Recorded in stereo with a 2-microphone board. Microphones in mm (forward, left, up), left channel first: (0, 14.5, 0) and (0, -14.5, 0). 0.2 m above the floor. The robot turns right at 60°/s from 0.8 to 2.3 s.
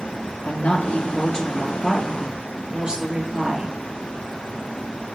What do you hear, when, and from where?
0.4 s a woman speaking: 120° left, 3 m; by 3.8 s 150° right, 3 m